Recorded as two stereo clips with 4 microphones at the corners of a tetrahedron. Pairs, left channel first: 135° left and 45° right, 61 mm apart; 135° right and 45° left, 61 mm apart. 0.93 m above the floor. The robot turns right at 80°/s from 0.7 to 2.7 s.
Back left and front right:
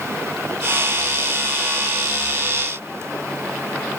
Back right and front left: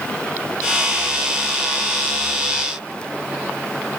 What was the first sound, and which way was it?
Only background noise.